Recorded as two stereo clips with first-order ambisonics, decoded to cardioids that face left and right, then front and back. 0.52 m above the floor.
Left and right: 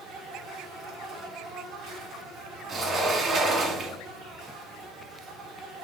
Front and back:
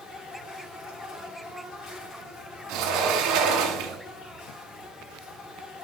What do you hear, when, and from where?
0.0 s an insect: 45° right, 5 m
2.7 s a sliding door: 150° right, 1.6 m